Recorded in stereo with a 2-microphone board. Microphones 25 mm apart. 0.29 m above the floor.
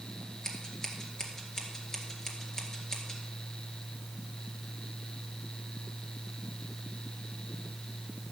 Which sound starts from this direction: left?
Scissors, at 0.4 s.